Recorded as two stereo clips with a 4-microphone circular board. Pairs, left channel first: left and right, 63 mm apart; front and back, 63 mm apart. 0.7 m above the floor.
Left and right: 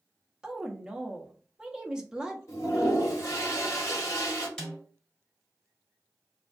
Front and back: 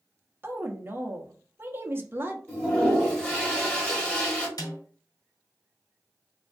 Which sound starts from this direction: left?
A toilet flushing, at 2.5 s.